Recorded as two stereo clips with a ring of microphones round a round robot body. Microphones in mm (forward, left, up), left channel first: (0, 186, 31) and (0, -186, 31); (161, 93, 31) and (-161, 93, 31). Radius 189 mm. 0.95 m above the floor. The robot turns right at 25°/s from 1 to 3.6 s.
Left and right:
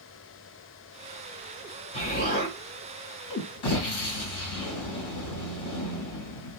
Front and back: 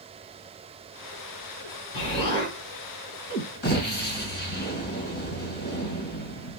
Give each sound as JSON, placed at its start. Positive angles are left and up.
{"t": 1.9, "sound": "an explosion", "azimuth_deg": 20, "distance_m": 2.0}